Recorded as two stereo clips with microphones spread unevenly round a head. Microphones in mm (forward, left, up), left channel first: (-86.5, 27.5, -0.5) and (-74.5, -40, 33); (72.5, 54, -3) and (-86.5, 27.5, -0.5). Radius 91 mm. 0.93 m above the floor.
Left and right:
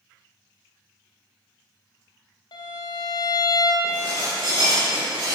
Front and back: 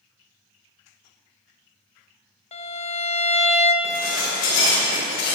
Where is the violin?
60° left, 0.8 m.